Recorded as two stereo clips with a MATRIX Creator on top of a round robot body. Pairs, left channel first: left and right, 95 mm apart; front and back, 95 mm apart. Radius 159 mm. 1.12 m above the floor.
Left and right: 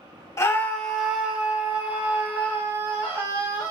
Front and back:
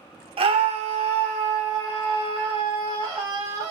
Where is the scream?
150° left, 0.7 m; by 3.7 s 150° right, 3 m.